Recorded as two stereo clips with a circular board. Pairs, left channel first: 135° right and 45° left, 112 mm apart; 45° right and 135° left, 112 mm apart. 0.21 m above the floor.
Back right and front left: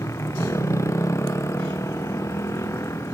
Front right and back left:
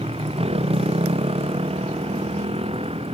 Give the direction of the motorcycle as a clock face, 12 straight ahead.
7 o'clock.